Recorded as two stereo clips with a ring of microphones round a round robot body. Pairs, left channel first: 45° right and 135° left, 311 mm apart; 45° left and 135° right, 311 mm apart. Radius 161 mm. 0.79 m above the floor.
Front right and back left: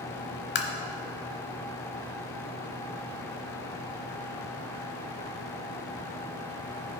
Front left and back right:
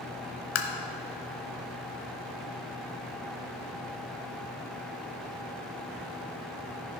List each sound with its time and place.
0.6 s tapping: 5° left, 0.8 m